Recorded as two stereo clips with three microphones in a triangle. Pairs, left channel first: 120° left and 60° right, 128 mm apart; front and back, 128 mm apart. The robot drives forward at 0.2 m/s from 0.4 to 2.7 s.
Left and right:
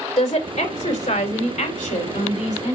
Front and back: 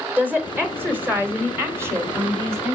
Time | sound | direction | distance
0.2 | a woman speaking | 105° left | 3 m